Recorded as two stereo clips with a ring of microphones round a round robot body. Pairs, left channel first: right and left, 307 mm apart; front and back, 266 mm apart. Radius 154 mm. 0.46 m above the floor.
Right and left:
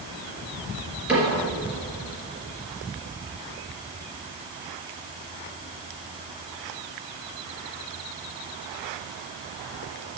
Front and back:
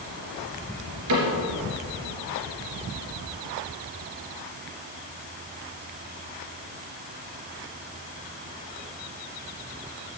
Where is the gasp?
No gasp in this recording.